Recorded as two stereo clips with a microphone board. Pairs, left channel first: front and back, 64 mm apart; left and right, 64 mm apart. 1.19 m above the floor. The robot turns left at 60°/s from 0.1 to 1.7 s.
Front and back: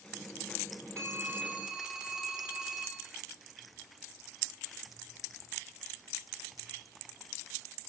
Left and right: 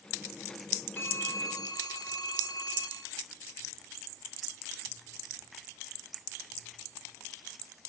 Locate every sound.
1.0 s a phone ringing: 140° left, 3 m; by 3.1 s 100° left, 3 m